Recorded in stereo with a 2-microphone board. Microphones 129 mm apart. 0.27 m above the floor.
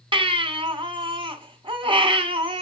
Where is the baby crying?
40° right (ahead or behind), 1.7 m.